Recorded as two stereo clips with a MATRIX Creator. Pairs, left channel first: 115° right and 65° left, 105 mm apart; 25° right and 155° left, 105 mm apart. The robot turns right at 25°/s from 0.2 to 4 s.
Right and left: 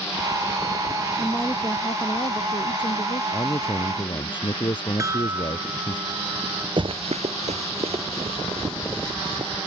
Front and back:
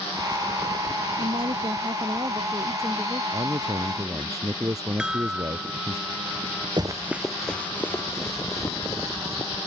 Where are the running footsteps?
110° left; by 9.5 s 30° left.